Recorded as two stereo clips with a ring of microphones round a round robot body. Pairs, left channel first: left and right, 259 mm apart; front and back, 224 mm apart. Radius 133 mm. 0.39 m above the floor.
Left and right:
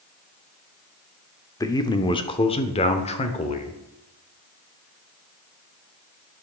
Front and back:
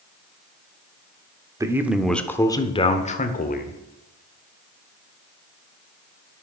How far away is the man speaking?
About 1.0 m.